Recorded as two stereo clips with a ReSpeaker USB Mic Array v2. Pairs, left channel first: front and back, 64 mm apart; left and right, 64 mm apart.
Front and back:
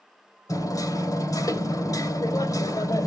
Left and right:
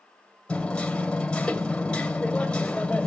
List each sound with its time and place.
0.5 s hammering: 15° left, 2.5 m